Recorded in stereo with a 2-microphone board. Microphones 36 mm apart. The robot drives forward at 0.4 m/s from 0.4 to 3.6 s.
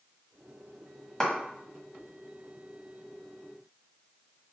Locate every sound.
1.2 s a clap: 15° left (ahead or behind), 1.3 m